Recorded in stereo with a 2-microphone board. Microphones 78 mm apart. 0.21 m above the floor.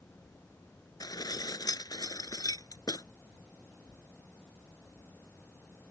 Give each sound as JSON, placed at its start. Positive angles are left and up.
{"t": 1.0, "sound": "dishes clattering", "side_deg": 55}